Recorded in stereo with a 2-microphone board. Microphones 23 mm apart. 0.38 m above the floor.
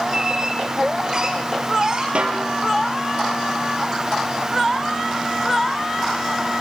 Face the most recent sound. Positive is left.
turn(degrees=-50)  # may be behind; listen again after turning